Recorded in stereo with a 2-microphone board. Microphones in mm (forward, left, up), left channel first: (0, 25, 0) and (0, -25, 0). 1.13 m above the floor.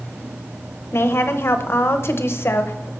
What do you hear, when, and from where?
0.9 s a woman speaking: 55° left (ahead or behind), 0.8 m